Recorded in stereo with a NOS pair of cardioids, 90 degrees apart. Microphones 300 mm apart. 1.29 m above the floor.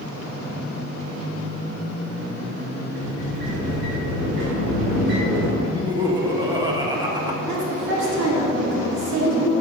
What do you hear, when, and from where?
3.0 s a sliding door: 70° right, 2.5 m
5.6 s laughter: 15° right, 1.5 m
7.5 s a woman speaking: 65° right, 2.5 m